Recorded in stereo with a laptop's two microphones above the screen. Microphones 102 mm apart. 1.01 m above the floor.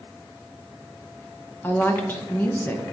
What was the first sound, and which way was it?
A woman speaking, 20° left (ahead or behind).